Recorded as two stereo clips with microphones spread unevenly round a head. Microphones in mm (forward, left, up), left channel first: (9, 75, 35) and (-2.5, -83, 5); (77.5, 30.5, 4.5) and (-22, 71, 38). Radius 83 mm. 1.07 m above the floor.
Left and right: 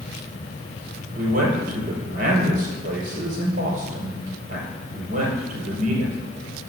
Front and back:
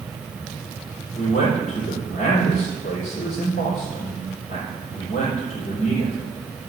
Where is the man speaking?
55° right, 4.5 m.